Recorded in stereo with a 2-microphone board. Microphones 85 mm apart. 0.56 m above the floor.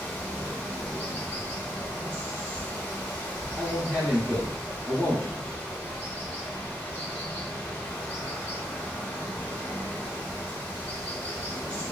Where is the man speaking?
5° right (ahead or behind), 0.6 m.